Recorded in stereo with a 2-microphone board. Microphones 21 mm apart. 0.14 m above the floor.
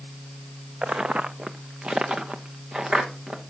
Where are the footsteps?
70° right (ahead or behind), 0.6 m; by 3.4 s 35° right (ahead or behind), 2.0 m.